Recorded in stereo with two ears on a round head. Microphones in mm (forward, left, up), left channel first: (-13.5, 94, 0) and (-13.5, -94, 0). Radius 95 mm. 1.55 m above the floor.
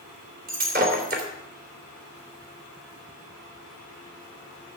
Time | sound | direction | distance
0.5 | breaking glass | 50° right (ahead or behind) | 3 m